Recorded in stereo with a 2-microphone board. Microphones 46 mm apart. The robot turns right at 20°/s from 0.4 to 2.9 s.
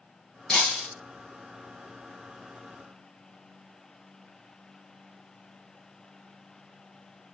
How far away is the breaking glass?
About 2.5 m.